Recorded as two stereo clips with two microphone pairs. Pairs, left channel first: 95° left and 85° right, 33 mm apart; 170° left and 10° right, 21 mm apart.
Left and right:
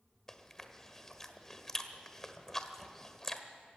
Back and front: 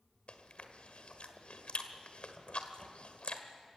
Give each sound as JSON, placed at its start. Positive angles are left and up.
{"t": 0.3, "sound": "chewing", "azimuth_deg": 175, "distance_m": 1.5}